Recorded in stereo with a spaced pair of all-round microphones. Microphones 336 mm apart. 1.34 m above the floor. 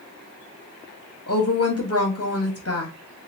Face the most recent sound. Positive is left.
turn(degrees=50)  # may be behind; listen again after turning